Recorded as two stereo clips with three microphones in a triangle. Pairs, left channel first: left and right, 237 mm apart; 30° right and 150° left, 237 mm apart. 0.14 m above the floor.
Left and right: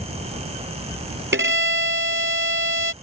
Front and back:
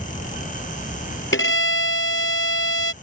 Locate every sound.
1.3 s a violin: 55° right